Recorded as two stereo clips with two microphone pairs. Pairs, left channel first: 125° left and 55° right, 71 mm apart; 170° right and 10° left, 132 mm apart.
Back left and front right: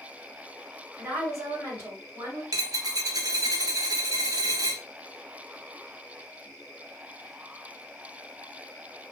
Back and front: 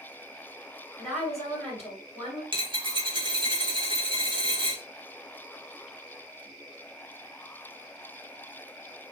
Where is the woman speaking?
80° right, 1.8 m.